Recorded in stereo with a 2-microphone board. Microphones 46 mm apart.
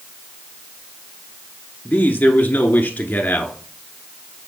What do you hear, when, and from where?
1.9 s a man speaking: 35° left (ahead or behind), 1.3 m